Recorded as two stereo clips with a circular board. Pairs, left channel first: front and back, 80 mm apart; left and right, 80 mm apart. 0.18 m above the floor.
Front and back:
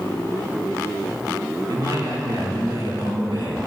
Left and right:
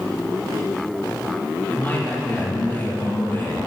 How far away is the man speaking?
About 3 m.